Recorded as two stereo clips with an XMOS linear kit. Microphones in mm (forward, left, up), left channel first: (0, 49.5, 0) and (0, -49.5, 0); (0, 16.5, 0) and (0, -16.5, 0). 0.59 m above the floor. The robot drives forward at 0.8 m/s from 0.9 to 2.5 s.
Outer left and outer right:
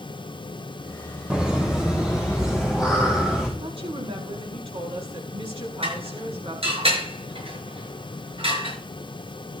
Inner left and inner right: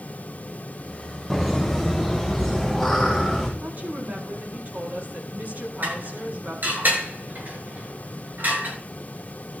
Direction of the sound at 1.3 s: 10° right (ahead or behind).